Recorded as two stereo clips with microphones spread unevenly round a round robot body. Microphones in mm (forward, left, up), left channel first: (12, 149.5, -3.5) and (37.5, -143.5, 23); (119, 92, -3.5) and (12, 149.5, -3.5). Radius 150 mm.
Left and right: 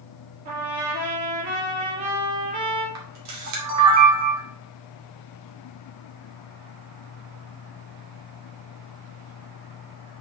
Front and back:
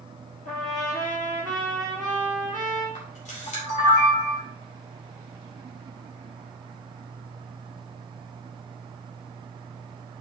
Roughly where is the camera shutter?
Ahead right.